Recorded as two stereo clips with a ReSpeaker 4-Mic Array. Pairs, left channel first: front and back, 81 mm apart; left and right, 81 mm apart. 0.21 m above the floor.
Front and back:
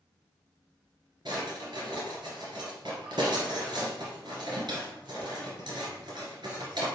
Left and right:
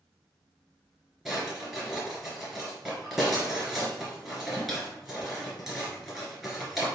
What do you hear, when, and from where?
1.2 s a drawer: straight behind, 1.9 m